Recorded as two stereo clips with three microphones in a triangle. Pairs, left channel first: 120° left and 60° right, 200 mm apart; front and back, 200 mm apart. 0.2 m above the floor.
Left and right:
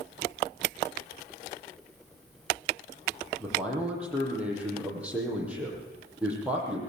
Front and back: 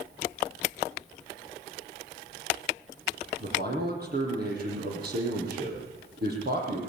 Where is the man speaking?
145° right, 8 m.